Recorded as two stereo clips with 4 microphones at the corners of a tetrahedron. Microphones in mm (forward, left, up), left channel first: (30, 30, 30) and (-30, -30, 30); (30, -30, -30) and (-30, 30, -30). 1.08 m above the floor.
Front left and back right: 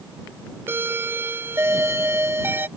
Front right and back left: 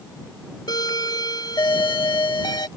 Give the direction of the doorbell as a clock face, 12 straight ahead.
2 o'clock.